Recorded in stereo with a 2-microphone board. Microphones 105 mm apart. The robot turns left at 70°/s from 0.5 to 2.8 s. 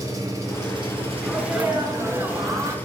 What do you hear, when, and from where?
0.0 s an engine running: 40° right, 1.1 m; by 2.9 s 160° left, 1.1 m
1.2 s a sneeze: 5° right (ahead or behind), 0.8 m; by 2.8 s 25° right (ahead or behind), 0.8 m